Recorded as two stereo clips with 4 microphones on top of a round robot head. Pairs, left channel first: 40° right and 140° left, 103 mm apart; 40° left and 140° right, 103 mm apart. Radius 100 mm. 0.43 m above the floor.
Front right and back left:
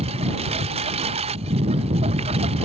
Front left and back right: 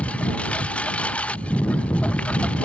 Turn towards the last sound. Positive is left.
turn(degrees=120)